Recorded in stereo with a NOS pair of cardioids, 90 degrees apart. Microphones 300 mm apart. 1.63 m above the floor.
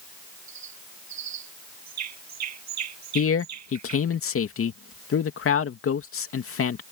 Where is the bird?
65° right.